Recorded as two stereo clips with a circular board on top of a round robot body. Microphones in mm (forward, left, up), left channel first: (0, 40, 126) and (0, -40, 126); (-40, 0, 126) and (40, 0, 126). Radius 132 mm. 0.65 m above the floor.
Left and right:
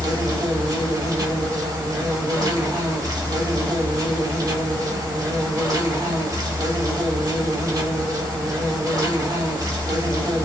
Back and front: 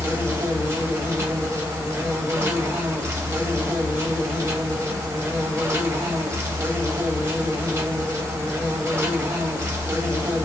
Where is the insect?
55° right, 1.4 m.